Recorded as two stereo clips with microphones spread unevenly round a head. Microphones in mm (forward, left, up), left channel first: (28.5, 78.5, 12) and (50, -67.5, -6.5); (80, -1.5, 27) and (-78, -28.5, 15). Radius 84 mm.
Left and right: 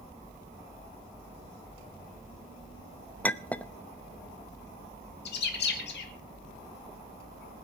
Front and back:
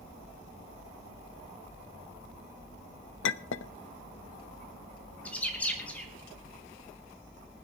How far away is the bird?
About 3 m.